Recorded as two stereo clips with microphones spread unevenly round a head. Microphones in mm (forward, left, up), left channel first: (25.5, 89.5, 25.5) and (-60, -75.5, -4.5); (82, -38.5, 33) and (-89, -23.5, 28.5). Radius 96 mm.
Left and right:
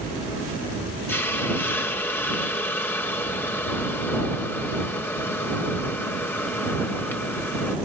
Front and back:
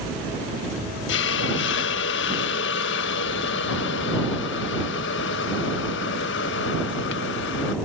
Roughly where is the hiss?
Ahead.